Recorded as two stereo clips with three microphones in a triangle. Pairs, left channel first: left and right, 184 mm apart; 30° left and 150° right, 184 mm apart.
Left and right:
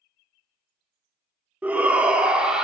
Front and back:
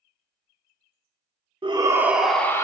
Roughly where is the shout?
Behind.